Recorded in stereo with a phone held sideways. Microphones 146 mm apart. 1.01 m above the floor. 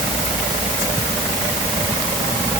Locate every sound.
Only background noise.